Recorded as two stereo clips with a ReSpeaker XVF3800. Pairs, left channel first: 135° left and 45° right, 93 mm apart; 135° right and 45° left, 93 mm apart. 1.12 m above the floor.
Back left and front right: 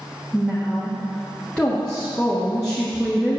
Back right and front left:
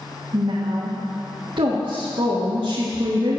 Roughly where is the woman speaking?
Ahead left.